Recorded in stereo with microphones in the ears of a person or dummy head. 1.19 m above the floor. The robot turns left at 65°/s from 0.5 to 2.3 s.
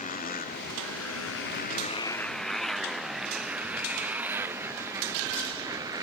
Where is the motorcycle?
40° left (ahead or behind); by 6.0 s 20° right (ahead or behind).